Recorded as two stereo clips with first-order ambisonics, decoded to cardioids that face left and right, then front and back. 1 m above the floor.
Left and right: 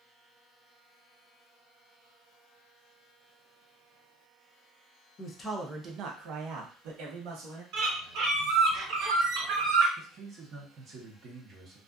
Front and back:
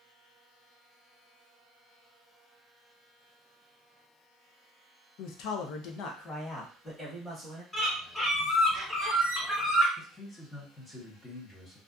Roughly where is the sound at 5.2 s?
Ahead left.